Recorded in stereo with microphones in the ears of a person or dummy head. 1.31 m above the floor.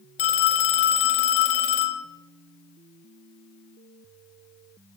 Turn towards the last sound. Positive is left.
turn(degrees=40)  # may be behind; listen again after turning